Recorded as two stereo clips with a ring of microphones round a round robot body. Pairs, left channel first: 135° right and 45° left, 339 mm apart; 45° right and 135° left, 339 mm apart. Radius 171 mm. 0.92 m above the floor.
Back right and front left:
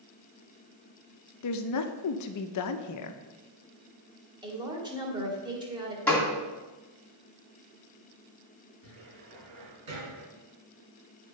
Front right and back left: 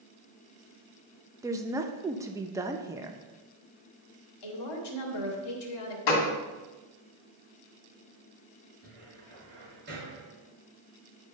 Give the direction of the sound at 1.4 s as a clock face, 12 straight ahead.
5 o'clock.